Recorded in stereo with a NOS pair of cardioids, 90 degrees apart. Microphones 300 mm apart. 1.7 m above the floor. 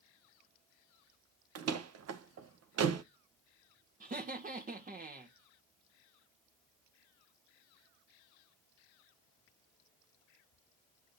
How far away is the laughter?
About 1.9 m.